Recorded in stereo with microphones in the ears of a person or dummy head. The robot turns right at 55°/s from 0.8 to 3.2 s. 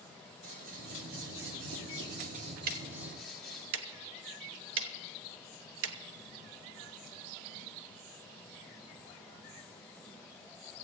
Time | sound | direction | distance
0.4 | scissors | 130° right | 2 m
2.7 | ticking | 50° right (ahead or behind) | 0.9 m